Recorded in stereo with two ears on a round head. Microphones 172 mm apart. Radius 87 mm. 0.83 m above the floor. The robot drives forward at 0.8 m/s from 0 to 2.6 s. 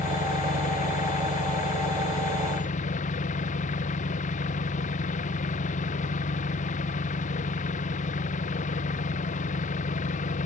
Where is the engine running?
45° left (ahead or behind); by 10.5 s 40° left (ahead or behind).